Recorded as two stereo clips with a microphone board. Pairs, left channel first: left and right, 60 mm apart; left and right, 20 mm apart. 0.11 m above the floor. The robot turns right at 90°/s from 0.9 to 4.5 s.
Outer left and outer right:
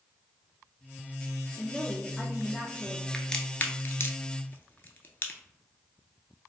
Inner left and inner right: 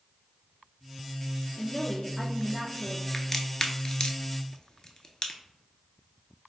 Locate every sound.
1.6 s a woman speaking: 20° left (ahead or behind), 1.1 m; by 3.0 s 10° right (ahead or behind), 1.1 m
3.1 s a crack: 5° left (ahead or behind), 0.5 m; by 5.4 s 35° left (ahead or behind), 0.5 m